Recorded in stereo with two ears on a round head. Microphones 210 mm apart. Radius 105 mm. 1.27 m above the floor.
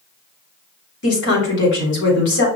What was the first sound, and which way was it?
A woman speaking, 50° left (ahead or behind).